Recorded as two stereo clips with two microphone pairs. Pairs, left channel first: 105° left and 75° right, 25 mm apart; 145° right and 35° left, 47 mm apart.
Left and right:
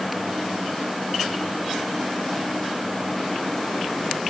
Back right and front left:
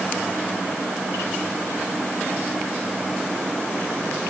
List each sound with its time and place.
Only background noise.